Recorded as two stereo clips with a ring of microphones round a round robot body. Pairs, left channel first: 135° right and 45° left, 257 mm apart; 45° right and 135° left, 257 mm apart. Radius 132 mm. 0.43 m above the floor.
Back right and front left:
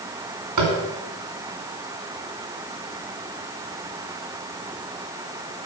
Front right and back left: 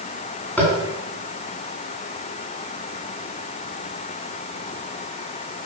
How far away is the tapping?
About 2.5 m.